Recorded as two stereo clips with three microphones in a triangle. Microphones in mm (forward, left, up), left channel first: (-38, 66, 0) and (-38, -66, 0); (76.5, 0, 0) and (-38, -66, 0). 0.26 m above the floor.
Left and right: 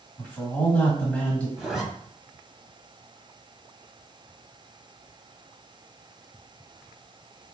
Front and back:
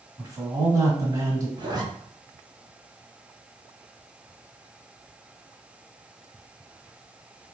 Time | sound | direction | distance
0.2 | a man speaking | 160° left | 1.5 m
1.6 | a zipper | 175° right | 1.1 m